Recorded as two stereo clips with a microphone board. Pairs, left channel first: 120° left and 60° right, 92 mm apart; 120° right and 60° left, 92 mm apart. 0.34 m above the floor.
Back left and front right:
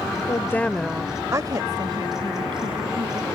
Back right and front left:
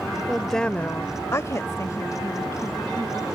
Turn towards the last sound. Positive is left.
turn(degrees=-65)